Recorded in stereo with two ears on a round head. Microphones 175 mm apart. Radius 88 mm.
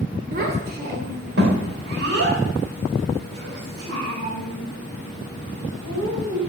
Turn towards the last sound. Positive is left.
turn(degrees=-70)  # may be behind; listen again after turning